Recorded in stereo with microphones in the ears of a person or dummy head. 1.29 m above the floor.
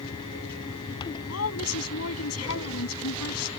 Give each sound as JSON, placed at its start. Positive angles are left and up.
{"t": 1.3, "sound": "a woman speaking", "side_deg": 80}